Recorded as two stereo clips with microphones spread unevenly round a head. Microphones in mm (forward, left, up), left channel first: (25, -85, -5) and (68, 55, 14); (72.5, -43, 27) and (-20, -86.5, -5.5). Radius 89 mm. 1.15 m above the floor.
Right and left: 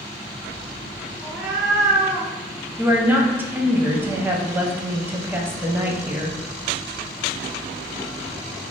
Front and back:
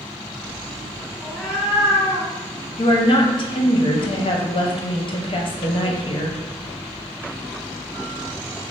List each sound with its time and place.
1.2 s a cat meowing: 5° left, 0.9 m; by 2.3 s 165° left, 0.9 m
2.8 s a woman speaking: 5° right, 0.7 m